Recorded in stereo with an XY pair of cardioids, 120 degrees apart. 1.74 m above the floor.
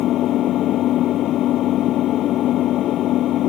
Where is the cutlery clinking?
I don't hear cutlery clinking.